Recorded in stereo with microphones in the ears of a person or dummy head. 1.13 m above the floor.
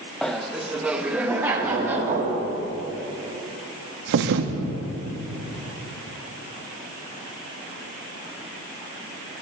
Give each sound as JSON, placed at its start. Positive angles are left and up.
{"t": 0.2, "sound": "laughter", "side_deg": 5, "distance_m": 0.5}
{"t": 1.6, "sound": "knocking", "side_deg": -40, "distance_m": 2.0}
{"t": 4.1, "sound": "a thud", "side_deg": -60, "distance_m": 0.7}